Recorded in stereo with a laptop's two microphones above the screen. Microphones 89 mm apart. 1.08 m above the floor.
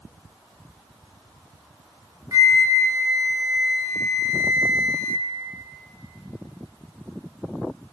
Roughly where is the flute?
Right.